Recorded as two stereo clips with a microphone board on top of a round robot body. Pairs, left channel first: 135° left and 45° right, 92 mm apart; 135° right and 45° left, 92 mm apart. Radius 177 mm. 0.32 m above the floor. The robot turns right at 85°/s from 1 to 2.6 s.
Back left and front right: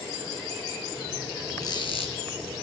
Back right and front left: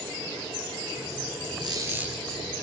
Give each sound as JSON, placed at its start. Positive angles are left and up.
{"t": 1.6, "sound": "a squeak", "azimuth_deg": 85, "distance_m": 5.0}